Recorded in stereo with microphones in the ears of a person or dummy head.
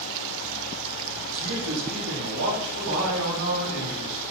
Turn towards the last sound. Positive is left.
turn(degrees=-80)